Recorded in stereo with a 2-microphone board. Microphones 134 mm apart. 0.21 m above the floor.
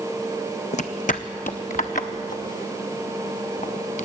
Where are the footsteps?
60° left (ahead or behind), 0.6 m; by 4.0 s 70° left (ahead or behind), 2.5 m.